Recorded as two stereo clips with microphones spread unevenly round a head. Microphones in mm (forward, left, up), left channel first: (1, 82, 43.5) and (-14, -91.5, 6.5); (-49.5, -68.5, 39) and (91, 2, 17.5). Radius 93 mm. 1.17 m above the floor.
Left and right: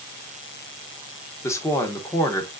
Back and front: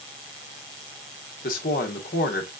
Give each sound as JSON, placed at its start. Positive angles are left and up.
{"t": 1.4, "sound": "a woman speaking", "azimuth_deg": 160, "distance_m": 1.0}